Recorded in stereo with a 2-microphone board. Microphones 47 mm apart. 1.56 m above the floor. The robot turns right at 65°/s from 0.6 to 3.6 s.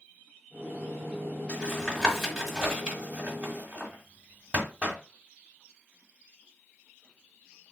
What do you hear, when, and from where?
1.5 s tapping: 20° left (ahead or behind), 1.5 m; by 5.0 s 30° right (ahead or behind), 1.5 m